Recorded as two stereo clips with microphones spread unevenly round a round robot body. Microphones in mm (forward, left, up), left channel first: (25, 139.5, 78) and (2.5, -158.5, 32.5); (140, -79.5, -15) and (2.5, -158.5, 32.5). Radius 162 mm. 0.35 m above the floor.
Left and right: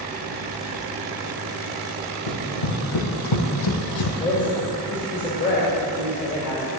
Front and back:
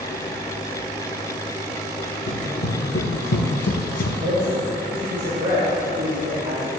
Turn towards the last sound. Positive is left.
turn(degrees=155)